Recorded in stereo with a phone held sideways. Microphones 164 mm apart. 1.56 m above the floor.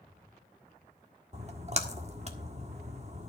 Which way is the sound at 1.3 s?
40° right (ahead or behind).